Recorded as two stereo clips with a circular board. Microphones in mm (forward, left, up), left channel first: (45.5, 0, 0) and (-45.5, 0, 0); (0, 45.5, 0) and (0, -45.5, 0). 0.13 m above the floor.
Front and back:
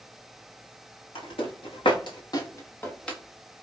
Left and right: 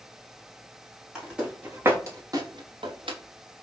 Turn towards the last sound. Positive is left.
turn(degrees=-85)